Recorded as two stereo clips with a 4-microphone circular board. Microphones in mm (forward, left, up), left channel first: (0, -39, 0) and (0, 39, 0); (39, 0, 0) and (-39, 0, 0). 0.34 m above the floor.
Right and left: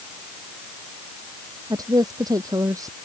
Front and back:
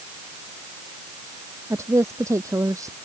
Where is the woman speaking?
130° left; by 3.0 s 135° left.